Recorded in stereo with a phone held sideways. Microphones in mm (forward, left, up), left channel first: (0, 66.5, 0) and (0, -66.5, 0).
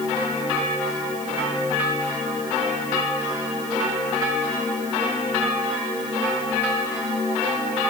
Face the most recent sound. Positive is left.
No sound to turn to.